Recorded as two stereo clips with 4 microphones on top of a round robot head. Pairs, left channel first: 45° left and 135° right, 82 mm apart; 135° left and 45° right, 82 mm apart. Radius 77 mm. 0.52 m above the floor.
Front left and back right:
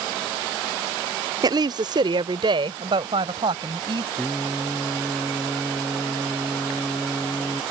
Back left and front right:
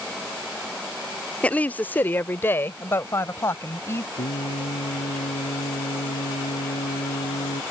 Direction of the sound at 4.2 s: 140° left.